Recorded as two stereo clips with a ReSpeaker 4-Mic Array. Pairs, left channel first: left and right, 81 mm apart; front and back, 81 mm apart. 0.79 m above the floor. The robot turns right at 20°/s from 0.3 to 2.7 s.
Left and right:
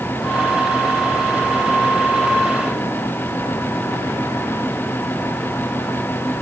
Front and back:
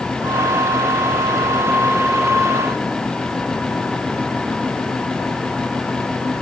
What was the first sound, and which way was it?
Only background noise.